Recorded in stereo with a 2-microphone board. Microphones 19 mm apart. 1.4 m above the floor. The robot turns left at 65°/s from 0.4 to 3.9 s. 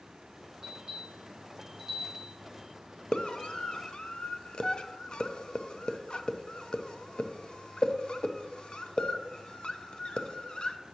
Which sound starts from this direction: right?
A bell, at 0.6 s.